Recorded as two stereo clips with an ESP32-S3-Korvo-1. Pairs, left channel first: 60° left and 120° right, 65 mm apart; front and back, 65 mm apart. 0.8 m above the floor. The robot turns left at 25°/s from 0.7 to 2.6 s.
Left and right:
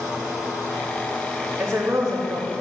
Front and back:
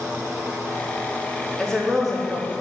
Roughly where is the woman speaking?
Right.